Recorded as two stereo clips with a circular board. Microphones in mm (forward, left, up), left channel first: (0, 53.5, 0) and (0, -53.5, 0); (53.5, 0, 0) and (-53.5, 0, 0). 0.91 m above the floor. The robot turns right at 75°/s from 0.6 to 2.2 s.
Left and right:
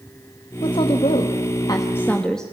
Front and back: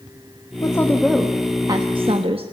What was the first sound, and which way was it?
A woman speaking, 50° left.